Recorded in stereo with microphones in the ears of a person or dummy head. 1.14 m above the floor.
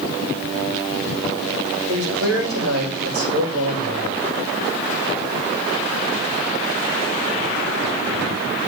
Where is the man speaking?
85° right, 5.5 m.